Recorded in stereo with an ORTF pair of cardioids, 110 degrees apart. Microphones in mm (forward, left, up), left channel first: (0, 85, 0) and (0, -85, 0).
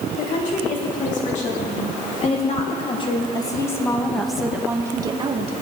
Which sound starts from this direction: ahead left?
A woman speaking, at 0.1 s.